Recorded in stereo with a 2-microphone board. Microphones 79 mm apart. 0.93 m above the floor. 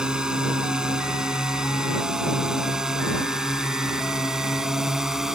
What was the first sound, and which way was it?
A drone, 10° right (ahead or behind).